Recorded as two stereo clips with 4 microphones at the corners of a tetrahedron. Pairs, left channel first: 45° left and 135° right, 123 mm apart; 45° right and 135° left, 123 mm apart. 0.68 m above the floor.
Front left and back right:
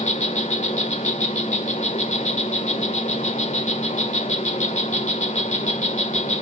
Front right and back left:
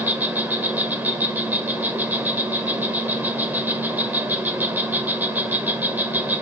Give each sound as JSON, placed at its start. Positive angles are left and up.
{"t": 0.0, "sound": "an insect", "azimuth_deg": 60, "distance_m": 1.8}